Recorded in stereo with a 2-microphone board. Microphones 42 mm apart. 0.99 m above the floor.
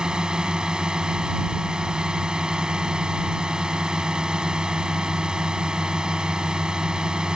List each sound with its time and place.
0.0 s a drone: 20° right (ahead or behind)